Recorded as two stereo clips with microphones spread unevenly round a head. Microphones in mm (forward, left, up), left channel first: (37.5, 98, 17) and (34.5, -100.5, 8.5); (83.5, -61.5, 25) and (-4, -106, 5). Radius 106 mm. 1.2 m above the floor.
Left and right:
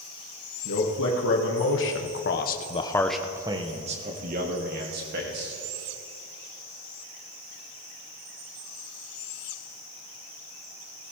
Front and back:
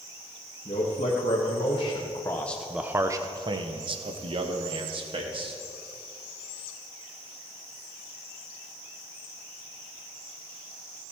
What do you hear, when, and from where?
0.7 s a man speaking: 70° left, 2.0 m; by 5.5 s 135° right, 2.5 m